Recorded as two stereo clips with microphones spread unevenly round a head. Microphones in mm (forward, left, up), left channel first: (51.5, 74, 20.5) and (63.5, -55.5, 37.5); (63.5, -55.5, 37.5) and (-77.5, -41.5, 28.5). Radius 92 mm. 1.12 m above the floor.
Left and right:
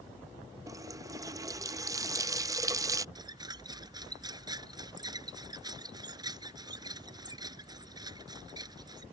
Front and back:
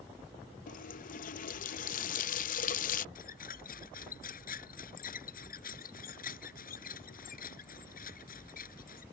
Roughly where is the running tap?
Ahead right.